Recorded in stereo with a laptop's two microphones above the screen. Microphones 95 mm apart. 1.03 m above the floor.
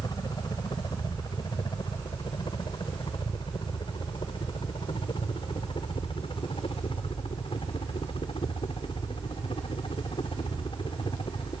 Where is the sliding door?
I don't hear a sliding door.